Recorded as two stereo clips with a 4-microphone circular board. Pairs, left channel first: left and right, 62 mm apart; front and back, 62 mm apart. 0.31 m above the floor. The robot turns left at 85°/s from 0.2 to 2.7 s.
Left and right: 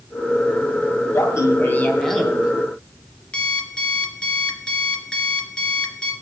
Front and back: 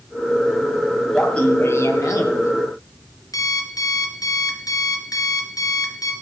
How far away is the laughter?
About 2.0 m.